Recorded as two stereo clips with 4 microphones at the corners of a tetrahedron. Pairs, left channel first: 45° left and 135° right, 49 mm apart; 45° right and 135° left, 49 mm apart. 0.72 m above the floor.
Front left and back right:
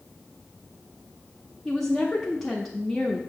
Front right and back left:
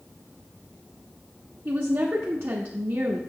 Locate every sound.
1.6 s a woman speaking: 130° left, 0.8 m